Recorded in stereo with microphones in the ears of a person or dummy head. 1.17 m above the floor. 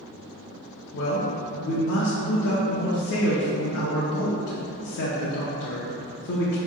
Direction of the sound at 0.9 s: 55° left (ahead or behind).